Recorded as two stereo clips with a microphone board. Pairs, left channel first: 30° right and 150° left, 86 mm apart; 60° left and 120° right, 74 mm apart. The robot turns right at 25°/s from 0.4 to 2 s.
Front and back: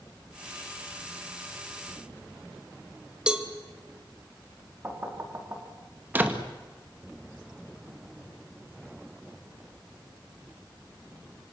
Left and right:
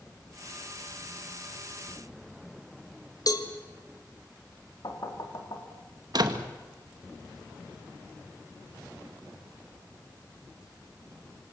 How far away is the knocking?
About 3.5 m.